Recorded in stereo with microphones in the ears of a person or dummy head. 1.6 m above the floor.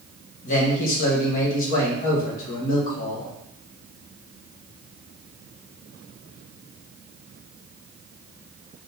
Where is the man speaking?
50° left (ahead or behind), 1.7 m.